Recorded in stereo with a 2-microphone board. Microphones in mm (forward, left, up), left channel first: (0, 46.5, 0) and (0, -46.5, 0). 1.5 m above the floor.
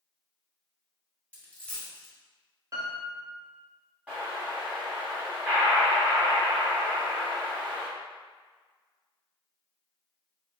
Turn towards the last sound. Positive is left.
turn(degrees=-15)  # may be behind; listen again after turning